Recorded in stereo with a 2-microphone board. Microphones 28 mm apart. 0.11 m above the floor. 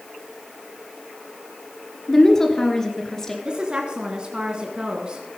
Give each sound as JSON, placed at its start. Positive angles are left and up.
{"t": 2.1, "sound": "a woman speaking", "side_deg": 15, "distance_m": 2.0}
{"t": 3.5, "sound": "a woman speaking", "side_deg": -30, "distance_m": 1.3}